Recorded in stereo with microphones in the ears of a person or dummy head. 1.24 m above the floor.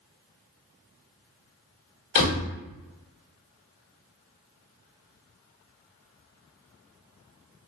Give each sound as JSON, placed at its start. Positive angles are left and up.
{"t": 2.1, "sound": "a door slam", "side_deg": 60, "distance_m": 1.3}